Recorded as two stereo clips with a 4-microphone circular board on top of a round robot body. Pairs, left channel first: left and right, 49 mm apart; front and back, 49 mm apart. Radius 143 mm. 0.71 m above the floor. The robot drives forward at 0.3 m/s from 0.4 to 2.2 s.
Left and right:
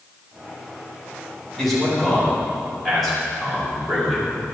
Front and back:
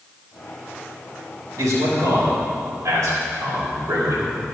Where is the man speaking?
Straight behind, 4 m.